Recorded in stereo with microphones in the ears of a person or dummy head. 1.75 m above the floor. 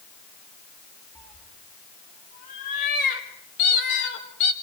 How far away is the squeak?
About 0.7 m.